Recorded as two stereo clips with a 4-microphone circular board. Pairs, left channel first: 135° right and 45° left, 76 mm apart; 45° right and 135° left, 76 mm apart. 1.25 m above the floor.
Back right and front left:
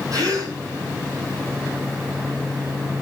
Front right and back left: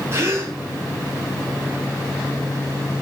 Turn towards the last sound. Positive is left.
turn(degrees=80)